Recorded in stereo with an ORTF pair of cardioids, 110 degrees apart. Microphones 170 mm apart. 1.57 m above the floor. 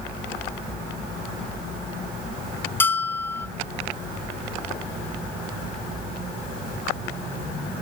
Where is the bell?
10° left, 0.8 m.